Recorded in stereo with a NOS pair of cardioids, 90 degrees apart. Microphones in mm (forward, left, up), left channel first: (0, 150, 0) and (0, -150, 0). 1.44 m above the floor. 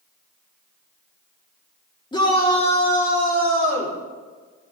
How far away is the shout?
About 3.5 m.